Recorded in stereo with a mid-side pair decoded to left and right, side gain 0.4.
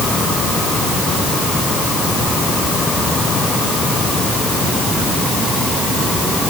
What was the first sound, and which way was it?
Only background noise.